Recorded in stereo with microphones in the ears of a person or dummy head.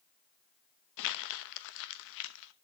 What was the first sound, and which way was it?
Crumpling, 60° left (ahead or behind).